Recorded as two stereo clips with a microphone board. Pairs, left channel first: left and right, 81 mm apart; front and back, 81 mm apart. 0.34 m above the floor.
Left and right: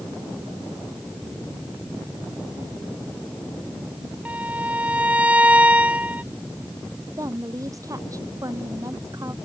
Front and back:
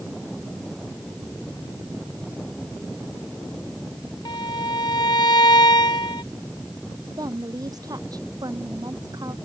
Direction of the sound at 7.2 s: 140° right.